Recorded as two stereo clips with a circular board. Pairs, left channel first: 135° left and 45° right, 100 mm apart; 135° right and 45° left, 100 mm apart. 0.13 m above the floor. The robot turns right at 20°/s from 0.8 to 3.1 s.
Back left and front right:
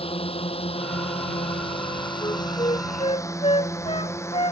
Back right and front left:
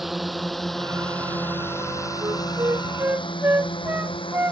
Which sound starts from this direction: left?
A flute, at 2.2 s.